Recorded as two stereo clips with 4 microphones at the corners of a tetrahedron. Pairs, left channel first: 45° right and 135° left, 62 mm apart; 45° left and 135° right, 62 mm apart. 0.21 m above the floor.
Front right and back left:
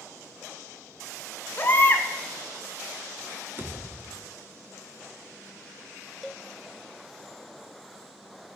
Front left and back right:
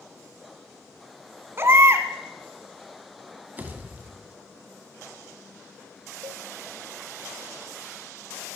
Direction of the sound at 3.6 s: 170° left.